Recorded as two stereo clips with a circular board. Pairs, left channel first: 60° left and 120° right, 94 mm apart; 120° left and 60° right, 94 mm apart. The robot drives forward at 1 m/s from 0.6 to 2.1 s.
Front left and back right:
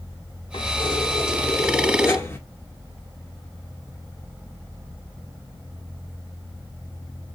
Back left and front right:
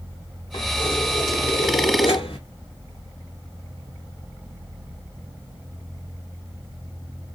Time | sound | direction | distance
0.5 | keys jangling | 80° left | 1.9 m